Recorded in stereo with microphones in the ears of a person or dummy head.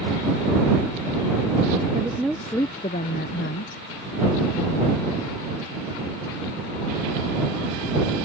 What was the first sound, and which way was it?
A woman speaking, 15° right (ahead or behind).